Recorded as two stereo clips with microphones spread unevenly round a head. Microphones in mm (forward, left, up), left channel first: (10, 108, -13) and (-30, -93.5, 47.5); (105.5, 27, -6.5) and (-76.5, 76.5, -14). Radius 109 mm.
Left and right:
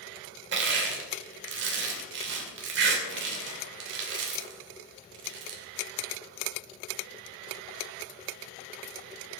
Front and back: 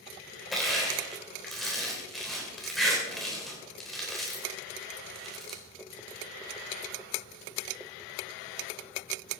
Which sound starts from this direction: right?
Crushing, at 0.5 s.